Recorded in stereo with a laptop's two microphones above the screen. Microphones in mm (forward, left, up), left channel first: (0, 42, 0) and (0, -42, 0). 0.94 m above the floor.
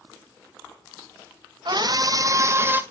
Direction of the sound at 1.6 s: 55° right (ahead or behind).